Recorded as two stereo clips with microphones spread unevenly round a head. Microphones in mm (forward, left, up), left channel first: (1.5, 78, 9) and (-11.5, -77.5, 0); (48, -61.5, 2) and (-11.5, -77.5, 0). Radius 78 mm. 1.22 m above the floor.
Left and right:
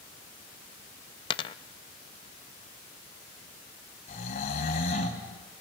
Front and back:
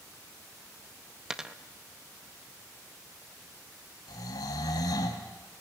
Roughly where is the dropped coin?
Behind left.